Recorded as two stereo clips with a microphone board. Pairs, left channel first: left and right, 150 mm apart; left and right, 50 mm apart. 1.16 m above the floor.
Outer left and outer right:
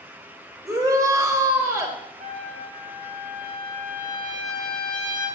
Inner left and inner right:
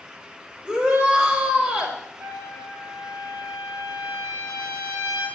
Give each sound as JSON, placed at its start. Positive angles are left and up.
{"t": 0.7, "sound": "a shout", "side_deg": -20, "distance_m": 4.0}
{"t": 2.2, "sound": "a trumpet", "side_deg": -60, "distance_m": 5.0}